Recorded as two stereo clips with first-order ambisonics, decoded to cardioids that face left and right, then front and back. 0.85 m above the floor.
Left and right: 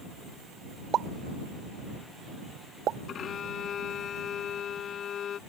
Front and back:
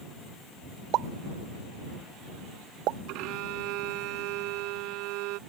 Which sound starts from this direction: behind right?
A pop, at 0.9 s.